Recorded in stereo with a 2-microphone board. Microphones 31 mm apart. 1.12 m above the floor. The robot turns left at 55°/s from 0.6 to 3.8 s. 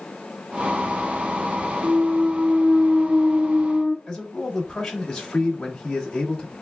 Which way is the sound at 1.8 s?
130° right.